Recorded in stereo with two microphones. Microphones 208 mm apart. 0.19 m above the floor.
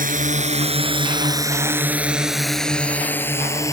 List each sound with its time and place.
0.0 s a drone: 40° right (ahead or behind); by 3.7 s 15° left (ahead or behind)